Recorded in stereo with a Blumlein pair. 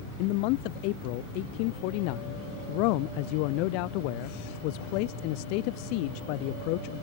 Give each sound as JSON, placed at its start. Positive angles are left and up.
{"t": 0.2, "sound": "a man speaking", "azimuth_deg": 45}